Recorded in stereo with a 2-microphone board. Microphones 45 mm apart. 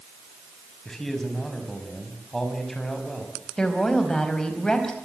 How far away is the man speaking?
About 5.5 m.